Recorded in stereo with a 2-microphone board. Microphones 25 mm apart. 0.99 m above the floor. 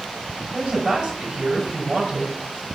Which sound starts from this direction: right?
A woman speaking, at 0.5 s.